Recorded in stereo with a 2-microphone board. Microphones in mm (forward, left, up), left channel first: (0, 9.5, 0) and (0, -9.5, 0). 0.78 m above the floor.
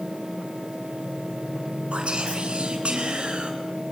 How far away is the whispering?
About 8 m.